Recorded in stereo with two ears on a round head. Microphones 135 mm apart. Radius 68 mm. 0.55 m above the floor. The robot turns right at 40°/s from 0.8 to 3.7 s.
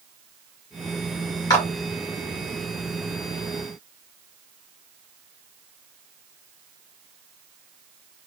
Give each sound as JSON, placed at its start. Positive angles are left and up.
{"t": 1.5, "sound": "a clap", "side_deg": 25, "distance_m": 1.2}